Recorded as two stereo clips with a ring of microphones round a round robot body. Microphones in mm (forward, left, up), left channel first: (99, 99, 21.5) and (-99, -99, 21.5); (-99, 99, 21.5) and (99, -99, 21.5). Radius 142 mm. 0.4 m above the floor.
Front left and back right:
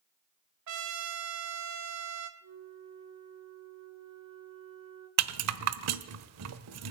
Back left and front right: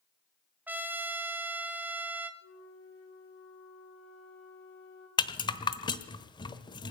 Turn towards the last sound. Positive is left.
turn(degrees=-155)